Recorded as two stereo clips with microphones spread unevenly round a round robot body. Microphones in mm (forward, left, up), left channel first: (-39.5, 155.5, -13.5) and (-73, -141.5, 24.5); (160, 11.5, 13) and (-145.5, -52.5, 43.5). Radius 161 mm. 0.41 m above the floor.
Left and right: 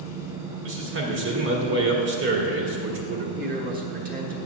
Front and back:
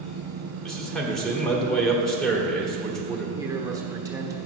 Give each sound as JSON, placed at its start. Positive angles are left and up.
{"t": 0.6, "sound": "a man speaking", "azimuth_deg": -70, "distance_m": 1.7}
{"t": 3.4, "sound": "a man speaking", "azimuth_deg": -95, "distance_m": 1.2}